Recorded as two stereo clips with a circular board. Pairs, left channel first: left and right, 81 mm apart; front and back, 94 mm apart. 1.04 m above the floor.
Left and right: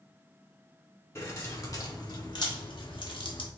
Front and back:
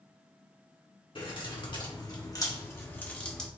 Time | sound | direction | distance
1.1 | keys jangling | 30° left | 1.5 m